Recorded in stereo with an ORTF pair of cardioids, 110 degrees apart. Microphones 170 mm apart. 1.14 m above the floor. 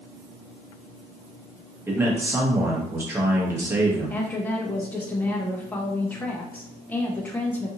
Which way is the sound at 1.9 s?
15° right.